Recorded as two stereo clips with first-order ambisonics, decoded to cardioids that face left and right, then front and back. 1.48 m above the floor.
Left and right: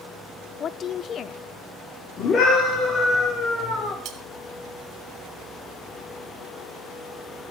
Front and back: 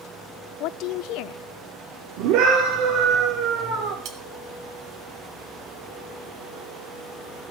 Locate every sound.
0.6 s a woman speaking: 30° left, 0.7 m
2.2 s a scream: 150° left, 4 m
4.0 s cutlery clinking: 140° right, 2.5 m